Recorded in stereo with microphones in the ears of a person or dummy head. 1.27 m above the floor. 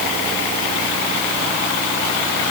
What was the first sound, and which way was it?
Only background noise.